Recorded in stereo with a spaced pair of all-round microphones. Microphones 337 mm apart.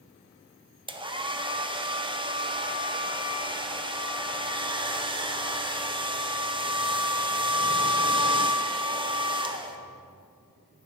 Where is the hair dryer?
15° right (ahead or behind), 0.7 m.